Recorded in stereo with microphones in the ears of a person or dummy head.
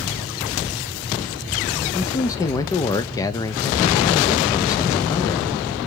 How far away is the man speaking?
About 0.5 m.